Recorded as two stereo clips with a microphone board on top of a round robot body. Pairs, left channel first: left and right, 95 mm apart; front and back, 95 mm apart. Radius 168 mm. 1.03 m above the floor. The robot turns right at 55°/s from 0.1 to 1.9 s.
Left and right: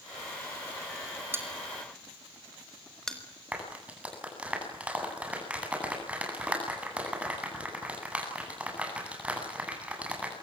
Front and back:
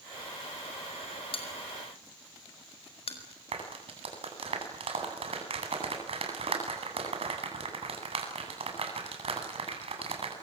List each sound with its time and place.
1.3 s a bell: 25° right, 5 m; by 3.2 s 5° left, 5 m
3.5 s a clap: 165° right, 9 m